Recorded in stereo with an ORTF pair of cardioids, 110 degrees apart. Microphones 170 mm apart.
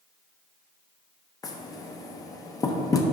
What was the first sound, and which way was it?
Knocking, 20° left.